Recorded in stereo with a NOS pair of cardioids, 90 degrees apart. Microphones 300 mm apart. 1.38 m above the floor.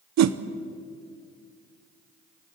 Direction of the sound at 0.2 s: 65° right.